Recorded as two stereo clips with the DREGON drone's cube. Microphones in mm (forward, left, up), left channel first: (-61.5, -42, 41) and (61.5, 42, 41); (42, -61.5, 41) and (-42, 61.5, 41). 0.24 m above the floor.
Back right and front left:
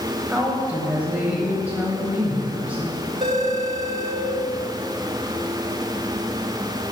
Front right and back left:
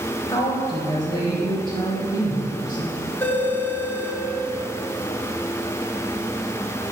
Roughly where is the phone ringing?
Ahead.